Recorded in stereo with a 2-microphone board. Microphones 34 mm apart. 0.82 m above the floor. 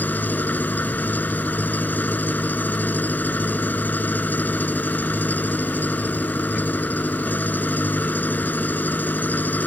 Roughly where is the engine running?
Left.